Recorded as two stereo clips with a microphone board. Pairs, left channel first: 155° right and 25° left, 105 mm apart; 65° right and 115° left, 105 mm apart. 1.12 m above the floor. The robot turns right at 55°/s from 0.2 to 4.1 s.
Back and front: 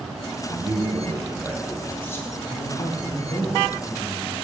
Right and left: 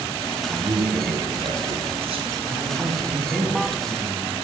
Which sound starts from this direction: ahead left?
A man speaking, at 0.5 s.